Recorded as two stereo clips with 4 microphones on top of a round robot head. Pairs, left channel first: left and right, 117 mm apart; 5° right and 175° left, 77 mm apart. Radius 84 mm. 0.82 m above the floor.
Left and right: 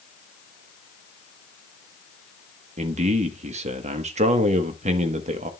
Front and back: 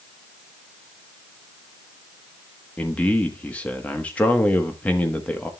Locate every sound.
2.8 s a man speaking: 80° right, 1.1 m